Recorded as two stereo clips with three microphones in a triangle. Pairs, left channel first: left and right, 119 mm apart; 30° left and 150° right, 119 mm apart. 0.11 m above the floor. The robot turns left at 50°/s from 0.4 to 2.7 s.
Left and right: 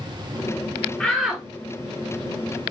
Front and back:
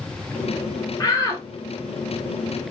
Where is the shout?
10° left, 1.3 m; by 1.4 s 15° right, 1.3 m.